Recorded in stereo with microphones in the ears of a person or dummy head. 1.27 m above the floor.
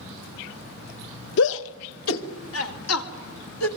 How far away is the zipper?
No zipper in this recording.